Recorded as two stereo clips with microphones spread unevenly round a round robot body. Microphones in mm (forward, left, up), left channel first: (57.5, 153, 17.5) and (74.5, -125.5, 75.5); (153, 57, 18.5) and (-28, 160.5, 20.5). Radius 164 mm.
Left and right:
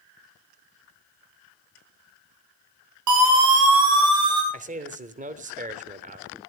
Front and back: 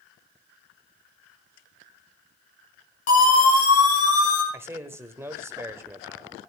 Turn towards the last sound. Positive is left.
turn(degrees=-145)